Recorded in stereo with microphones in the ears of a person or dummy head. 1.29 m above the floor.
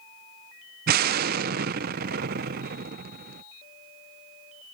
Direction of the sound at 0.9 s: 45° right (ahead or behind).